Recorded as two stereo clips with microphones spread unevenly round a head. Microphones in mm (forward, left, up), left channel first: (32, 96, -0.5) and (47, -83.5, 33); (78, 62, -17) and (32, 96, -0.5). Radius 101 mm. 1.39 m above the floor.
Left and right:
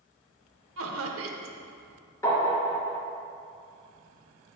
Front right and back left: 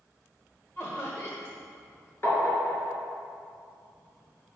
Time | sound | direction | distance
0.8 | laughter | 110° right | 1.2 m
2.2 | tapping | 20° left | 3.5 m